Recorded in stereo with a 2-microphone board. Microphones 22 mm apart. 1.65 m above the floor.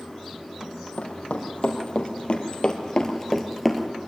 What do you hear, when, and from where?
0.6 s running footsteps: 65° left (ahead or behind), 4.5 m; by 3.9 s 10° right (ahead or behind), 2 m